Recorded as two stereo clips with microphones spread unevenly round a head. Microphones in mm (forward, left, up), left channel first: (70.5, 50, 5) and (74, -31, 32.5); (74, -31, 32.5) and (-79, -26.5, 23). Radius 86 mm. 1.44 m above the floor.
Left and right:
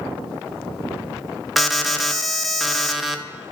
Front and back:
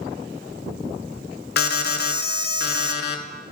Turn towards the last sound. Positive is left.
turn(degrees=10)